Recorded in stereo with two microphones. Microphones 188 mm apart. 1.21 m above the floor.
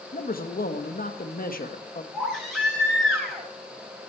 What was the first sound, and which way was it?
A man speaking, 50° left (ahead or behind).